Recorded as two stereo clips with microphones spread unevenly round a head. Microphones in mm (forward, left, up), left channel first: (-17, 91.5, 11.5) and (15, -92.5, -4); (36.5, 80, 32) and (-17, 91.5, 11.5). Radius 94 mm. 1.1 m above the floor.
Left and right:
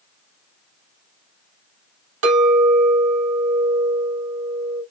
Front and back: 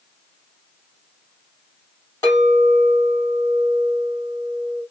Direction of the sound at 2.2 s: 75° right.